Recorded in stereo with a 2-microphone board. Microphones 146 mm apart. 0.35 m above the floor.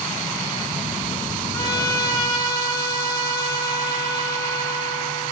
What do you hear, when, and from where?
1.5 s a trumpet: 25° left (ahead or behind), 3 m